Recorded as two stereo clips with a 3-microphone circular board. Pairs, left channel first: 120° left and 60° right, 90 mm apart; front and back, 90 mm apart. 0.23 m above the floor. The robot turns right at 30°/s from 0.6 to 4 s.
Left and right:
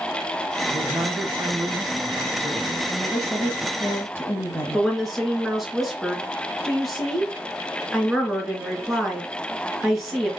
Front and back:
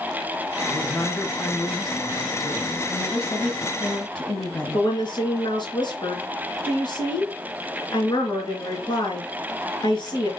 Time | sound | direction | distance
0.7 | a man speaking | 60° right | 2.5 m
2.9 | a woman speaking | 40° left | 1.2 m
4.7 | a woman speaking | 30° left | 3 m